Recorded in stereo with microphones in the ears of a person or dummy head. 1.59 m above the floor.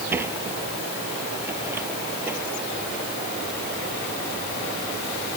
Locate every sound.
0.1 s a sliding door: 10° right (ahead or behind)